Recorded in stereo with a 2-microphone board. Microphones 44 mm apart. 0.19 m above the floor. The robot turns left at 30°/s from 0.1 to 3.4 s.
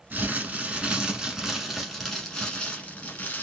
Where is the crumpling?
125° right, 1.1 m; by 3.4 s 135° left, 1.1 m.